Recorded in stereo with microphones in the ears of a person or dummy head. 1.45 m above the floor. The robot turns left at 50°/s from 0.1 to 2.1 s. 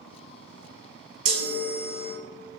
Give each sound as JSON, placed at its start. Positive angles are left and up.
{"t": 1.2, "sound": "a chime", "azimuth_deg": -105, "distance_m": 0.6}